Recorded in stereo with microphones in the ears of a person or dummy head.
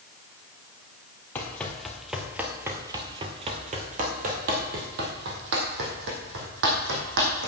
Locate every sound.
1.4 s running footsteps: 15° left (ahead or behind), 2 m; by 7.5 s 70° right (ahead or behind), 4 m